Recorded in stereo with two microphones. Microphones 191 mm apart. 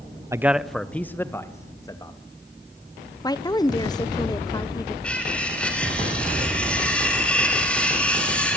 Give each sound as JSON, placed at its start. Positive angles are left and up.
{"t": 0.3, "sound": "a man speaking", "side_deg": -15, "distance_m": 0.9}
{"t": 3.2, "sound": "a woman speaking", "side_deg": 20, "distance_m": 1.3}
{"t": 5.0, "sound": "cutlery clinking", "side_deg": 5, "distance_m": 8.0}